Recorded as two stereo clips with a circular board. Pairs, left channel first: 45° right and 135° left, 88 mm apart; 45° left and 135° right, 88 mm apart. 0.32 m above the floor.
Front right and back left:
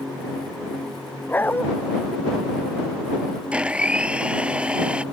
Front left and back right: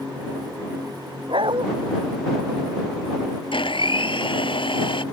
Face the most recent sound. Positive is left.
turn(degrees=55)